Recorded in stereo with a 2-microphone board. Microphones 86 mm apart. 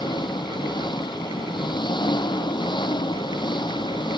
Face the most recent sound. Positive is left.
turn(degrees=60)  # may be behind; listen again after turning